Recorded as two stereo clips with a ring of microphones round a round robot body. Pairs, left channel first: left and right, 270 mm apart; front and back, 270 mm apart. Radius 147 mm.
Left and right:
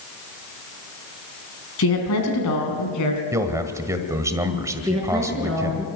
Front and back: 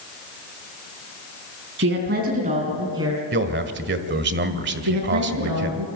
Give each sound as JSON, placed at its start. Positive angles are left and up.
{"t": 1.8, "sound": "a woman speaking", "azimuth_deg": 130, "distance_m": 3.5}
{"t": 3.3, "sound": "a man speaking", "azimuth_deg": -165, "distance_m": 1.5}
{"t": 4.8, "sound": "a woman speaking", "azimuth_deg": 180, "distance_m": 4.5}